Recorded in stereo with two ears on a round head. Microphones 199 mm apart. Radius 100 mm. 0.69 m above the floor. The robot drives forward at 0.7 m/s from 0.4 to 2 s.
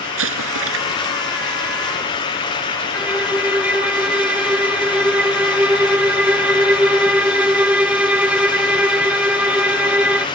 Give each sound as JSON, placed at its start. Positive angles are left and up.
{"t": 0.2, "sound": "an explosion", "side_deg": -65}
{"t": 2.9, "sound": "a violin", "side_deg": -5}